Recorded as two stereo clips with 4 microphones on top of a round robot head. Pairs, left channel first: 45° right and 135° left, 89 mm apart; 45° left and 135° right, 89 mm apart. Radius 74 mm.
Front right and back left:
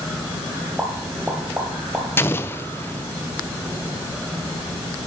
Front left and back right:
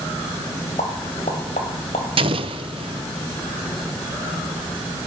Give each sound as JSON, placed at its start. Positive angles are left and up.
{"t": 0.8, "sound": "a pop", "azimuth_deg": 55, "distance_m": 1.5}
{"t": 2.2, "sound": "an explosion", "azimuth_deg": -110, "distance_m": 0.5}